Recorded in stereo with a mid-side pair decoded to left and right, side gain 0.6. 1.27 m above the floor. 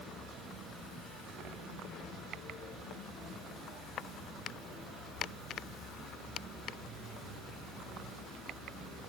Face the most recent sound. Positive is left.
No sound to turn to.